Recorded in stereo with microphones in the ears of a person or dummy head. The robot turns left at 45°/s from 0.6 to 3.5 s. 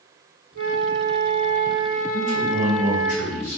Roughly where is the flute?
Behind right.